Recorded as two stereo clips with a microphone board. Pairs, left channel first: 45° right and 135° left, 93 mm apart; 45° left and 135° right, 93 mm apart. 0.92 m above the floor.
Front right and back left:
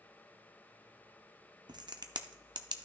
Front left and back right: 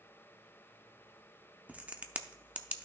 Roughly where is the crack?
Behind left.